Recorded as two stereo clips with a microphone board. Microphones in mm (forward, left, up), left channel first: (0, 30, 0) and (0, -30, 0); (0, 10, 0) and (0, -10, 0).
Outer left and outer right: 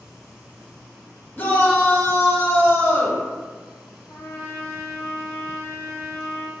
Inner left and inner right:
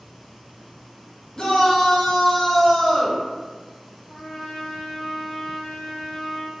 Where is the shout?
35° left (ahead or behind), 0.7 m.